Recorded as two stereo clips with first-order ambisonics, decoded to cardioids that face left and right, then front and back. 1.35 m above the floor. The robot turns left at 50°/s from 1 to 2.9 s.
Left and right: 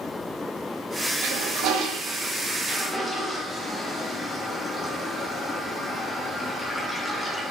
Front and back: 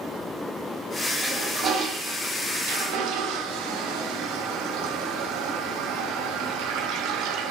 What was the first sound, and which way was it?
A toilet flushing, 95° right.